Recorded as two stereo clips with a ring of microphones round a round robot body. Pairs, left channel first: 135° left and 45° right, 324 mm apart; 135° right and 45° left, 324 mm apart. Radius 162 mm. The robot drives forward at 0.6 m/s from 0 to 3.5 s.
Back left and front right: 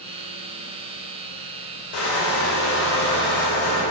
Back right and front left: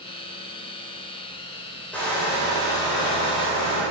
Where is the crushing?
140° left, 2.5 m; by 3.8 s 150° left, 3.5 m.